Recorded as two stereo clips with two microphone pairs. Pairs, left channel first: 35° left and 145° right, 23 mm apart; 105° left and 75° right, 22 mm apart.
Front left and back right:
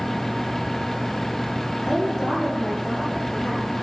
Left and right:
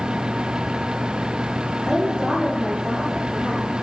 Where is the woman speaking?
35° right, 4 m.